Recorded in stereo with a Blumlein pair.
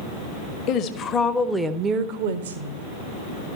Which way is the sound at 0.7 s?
40° left.